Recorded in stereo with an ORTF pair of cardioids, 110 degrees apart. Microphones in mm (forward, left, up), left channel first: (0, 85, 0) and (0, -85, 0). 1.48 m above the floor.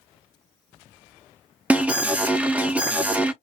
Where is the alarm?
10° right, 0.6 m.